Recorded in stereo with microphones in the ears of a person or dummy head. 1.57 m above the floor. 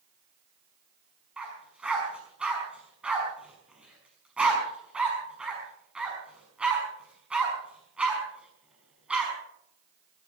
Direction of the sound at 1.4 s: 10° right (ahead or behind).